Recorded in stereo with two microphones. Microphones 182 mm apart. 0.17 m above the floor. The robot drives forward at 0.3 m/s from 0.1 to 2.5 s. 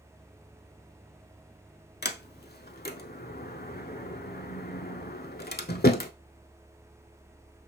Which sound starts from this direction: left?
A sliding door, at 2.0 s.